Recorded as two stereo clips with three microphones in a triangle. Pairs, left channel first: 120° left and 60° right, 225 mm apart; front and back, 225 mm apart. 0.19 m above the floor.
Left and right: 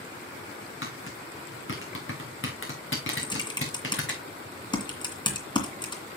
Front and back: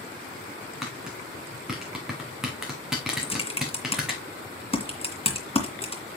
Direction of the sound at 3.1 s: 55° left.